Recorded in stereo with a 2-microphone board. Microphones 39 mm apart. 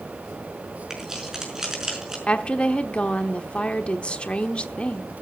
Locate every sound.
0.9 s keys jangling: 15° right (ahead or behind), 5.5 m
2.3 s a woman speaking: 30° left (ahead or behind), 1.1 m